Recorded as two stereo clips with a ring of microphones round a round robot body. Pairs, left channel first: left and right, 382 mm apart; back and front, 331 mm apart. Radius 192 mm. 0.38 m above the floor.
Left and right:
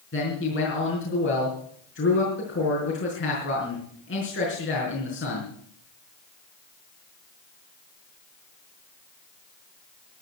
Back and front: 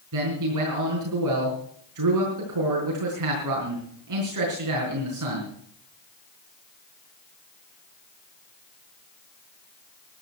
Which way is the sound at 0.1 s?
30° left.